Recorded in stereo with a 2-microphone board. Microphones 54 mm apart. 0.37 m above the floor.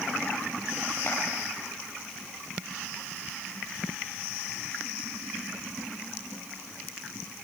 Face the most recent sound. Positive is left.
turn(degrees=50)  # may be behind; listen again after turning